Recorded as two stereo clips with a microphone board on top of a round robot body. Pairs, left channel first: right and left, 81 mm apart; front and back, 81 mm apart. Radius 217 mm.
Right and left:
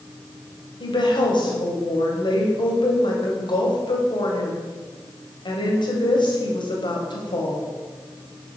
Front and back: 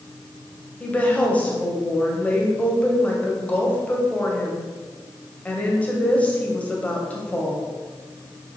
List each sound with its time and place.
0.8 s a woman speaking: 75° right, 2.5 m